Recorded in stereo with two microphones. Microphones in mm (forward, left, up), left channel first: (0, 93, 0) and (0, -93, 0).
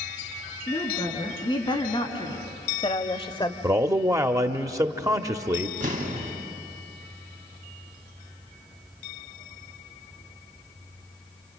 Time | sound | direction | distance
0.7 | a woman speaking | 25° left (ahead or behind) | 4 m
3.6 | a man speaking | 20° right (ahead or behind) | 0.9 m
5.8 | an explosion | 50° right (ahead or behind) | 3 m